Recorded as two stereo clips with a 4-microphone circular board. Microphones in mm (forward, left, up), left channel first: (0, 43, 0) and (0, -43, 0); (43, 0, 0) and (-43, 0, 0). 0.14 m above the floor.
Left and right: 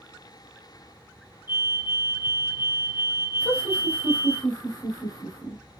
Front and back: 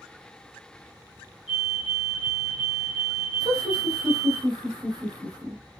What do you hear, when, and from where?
1.5 s a fire alarm: 110° left, 3.5 m
3.4 s laughter: 145° left, 4.5 m